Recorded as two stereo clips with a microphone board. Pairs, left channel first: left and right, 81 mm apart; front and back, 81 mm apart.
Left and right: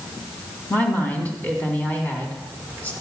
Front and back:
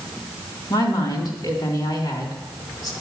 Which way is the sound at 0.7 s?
20° left.